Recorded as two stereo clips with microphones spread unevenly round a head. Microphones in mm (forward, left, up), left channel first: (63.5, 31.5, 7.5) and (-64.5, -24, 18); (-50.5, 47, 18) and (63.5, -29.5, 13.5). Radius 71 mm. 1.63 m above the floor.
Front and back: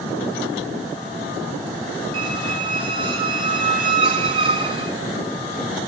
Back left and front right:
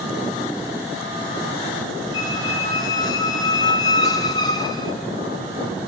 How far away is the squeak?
About 0.6 m.